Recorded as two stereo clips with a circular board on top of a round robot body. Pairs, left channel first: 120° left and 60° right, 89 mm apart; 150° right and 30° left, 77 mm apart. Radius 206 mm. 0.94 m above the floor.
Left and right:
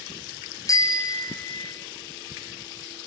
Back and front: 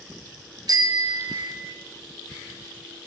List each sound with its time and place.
0.7 s a bicycle bell: 70° left, 3 m; by 1.8 s 75° left, 3.5 m